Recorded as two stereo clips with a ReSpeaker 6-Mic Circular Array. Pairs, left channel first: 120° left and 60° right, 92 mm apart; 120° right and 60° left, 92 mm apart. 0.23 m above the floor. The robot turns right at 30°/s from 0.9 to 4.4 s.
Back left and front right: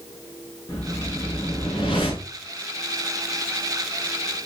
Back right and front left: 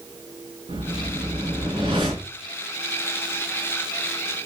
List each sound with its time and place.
0.7 s a whoosh: 65° left, 6.5 m; by 2.3 s 105° left, 6.5 m